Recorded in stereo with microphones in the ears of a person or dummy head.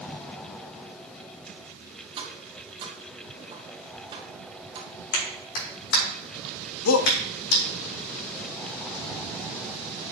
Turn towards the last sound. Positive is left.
turn(degrees=80)